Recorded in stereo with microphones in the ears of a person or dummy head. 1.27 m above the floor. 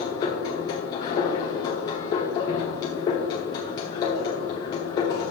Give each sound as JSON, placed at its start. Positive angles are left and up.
{"t": 0.0, "sound": "a machine running", "side_deg": 25, "distance_m": 1.0}